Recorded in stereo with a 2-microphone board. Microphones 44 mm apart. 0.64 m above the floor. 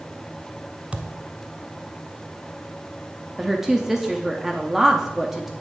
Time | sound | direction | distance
0.9 | a thud | 25° right (ahead or behind) | 0.8 m
3.4 | a woman speaking | 5° right (ahead or behind) | 0.7 m